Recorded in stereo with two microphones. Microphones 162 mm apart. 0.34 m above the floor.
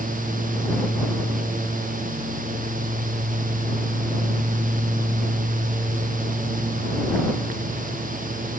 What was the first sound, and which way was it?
Only background noise.